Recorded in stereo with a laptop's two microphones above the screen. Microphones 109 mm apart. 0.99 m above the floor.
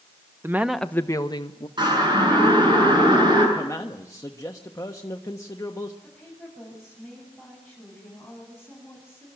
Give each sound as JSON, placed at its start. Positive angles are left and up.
{"t": 0.4, "sound": "a woman speaking", "side_deg": -25, "distance_m": 0.9}
{"t": 1.8, "sound": "a siren", "side_deg": -45, "distance_m": 9.0}
{"t": 3.5, "sound": "a man speaking", "side_deg": 30, "distance_m": 1.2}
{"t": 6.0, "sound": "a woman speaking", "side_deg": 0, "distance_m": 8.0}